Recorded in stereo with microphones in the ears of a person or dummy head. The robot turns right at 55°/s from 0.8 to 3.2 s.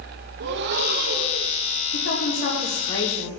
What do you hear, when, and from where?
0.4 s breathing: 70° right, 1.0 m; by 1.5 s 25° right, 1.0 m
1.9 s a woman speaking: 105° left, 2.5 m; by 3.3 s 175° left, 2.5 m